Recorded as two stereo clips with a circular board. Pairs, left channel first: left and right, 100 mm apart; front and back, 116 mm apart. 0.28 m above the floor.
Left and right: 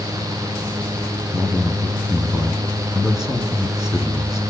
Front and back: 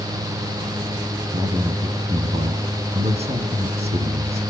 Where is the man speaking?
175° right, 3.5 m.